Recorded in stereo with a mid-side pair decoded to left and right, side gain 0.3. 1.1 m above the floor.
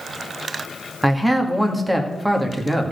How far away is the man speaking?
About 2 m.